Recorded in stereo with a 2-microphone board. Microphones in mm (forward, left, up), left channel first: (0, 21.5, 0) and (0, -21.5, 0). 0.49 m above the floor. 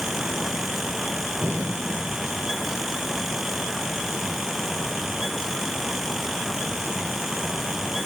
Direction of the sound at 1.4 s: 80° right.